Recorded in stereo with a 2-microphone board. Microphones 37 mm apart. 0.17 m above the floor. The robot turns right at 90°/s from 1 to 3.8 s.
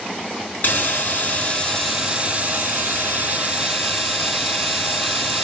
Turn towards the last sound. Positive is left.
turn(degrees=-5)